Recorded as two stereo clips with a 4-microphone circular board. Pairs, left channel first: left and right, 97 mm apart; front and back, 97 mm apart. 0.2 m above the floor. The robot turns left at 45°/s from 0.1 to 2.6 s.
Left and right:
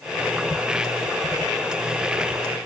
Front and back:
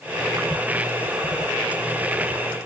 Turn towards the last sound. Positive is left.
No sound to turn to.